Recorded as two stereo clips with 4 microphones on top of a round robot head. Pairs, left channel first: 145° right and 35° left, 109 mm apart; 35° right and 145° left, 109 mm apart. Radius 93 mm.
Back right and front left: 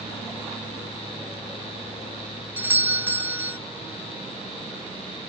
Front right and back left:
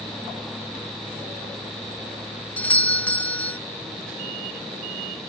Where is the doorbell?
10° left.